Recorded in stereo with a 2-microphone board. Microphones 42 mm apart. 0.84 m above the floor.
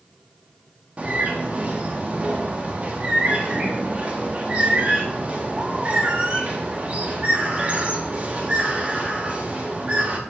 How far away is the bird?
About 1.2 m.